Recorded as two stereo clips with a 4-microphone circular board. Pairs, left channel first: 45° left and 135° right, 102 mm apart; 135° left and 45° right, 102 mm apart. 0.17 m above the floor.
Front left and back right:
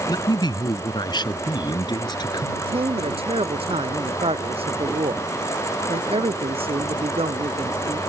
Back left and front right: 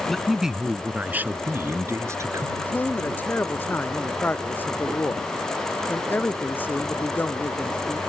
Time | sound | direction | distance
0.1 | a man speaking | 45° left | ?
2.6 | a man speaking | 155° right | ?